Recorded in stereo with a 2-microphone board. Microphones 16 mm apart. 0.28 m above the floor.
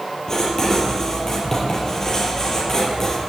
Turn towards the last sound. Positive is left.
turn(degrees=30)  # may be behind; listen again after turning